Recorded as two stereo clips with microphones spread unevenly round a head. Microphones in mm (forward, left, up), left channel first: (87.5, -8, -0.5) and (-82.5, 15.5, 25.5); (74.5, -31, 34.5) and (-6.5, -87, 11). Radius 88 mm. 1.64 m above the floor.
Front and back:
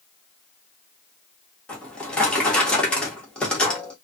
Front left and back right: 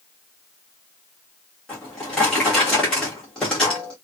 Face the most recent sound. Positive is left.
turn(degrees=90)